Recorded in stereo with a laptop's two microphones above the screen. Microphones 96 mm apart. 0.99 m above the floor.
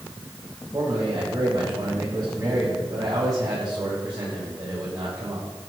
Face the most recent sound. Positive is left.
turn(degrees=-40)  # may be behind; listen again after turning